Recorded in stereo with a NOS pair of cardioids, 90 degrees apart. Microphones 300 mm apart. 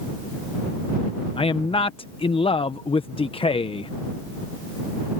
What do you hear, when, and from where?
1.4 s a man speaking: 20° left